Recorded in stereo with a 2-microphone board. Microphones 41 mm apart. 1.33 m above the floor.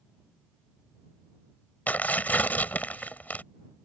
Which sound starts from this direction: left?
Tearing paper, at 1.9 s.